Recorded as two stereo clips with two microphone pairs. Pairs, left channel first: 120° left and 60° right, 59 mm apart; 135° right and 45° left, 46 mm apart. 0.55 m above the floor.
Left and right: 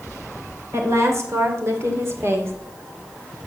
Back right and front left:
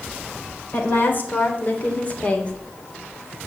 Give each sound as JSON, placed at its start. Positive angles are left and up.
{"t": 0.7, "sound": "a woman speaking", "azimuth_deg": -95, "distance_m": 3.0}